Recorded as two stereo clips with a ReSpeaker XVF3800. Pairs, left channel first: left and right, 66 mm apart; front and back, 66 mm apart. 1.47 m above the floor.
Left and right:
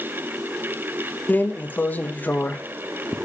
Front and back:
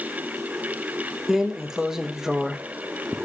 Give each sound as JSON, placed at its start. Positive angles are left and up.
{"t": 1.3, "sound": "a drawer", "azimuth_deg": 110, "distance_m": 0.7}